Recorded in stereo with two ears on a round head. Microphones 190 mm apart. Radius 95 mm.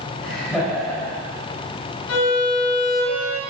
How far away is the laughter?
About 3 m.